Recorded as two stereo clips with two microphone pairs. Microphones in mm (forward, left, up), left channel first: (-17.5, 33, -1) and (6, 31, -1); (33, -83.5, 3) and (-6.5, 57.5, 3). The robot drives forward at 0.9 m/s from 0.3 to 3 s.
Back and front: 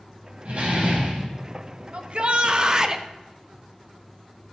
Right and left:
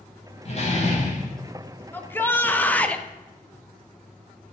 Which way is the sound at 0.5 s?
35° right.